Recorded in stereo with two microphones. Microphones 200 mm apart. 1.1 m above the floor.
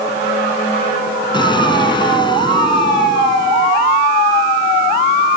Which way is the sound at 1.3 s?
20° left (ahead or behind).